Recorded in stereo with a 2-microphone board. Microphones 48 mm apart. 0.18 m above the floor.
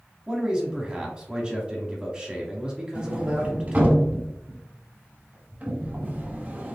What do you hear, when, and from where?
0.3 s a man speaking: 15° right (ahead or behind), 1.2 m
3.0 s a sliding door: 30° right (ahead or behind), 0.8 m